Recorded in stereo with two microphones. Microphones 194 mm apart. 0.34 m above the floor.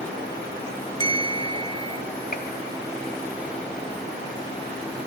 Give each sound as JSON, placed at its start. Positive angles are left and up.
{"t": 1.0, "sound": "a bell", "side_deg": 25, "distance_m": 1.5}
{"t": 2.3, "sound": "a gunshot", "side_deg": 50, "distance_m": 2.0}